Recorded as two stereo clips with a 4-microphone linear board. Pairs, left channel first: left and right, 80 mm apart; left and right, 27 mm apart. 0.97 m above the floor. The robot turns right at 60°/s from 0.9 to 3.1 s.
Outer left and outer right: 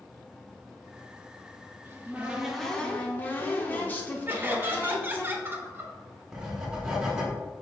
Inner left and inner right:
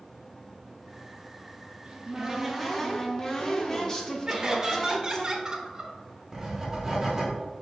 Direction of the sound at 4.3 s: 25° right (ahead or behind).